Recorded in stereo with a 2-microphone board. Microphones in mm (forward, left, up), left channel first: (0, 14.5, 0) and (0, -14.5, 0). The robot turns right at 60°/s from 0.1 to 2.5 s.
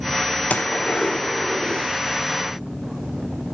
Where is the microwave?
No microwave in this recording.